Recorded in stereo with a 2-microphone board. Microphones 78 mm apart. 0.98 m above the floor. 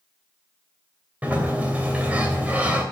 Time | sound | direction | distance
1.2 | a sliding door | 20° right (ahead or behind) | 2.5 m